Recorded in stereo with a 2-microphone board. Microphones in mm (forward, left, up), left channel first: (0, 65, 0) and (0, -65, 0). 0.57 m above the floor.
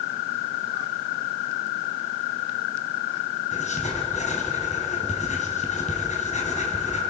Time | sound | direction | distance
3.5 | writing | 75° left (ahead or behind) | 4 m